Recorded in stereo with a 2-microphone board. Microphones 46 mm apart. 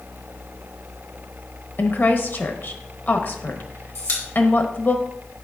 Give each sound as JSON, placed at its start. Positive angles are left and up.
{"t": 1.8, "sound": "a woman speaking", "side_deg": 45, "distance_m": 1.0}
{"t": 4.0, "sound": "a pop", "side_deg": 75, "distance_m": 2.0}